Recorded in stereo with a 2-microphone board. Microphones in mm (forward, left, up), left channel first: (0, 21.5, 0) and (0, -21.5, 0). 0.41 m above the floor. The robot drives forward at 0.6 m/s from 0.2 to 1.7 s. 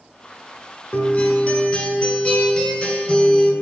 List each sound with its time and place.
0.9 s a guitar: 35° left (ahead or behind), 1.1 m; by 3.5 s 25° left (ahead or behind), 1.5 m